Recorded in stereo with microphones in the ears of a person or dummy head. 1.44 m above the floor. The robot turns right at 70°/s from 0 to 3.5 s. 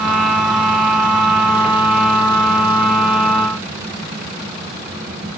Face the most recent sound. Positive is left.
No sound to turn to.